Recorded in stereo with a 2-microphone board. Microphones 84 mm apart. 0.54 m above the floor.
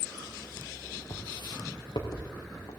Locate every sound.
1.1 s footsteps: 65° left (ahead or behind), 3 m; by 2.7 s 50° left (ahead or behind), 3.5 m